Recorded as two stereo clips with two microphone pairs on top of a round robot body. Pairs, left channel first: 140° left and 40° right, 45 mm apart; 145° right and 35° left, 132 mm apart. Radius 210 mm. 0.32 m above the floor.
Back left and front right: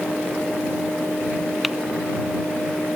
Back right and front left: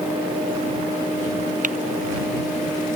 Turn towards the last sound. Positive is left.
turn(degrees=50)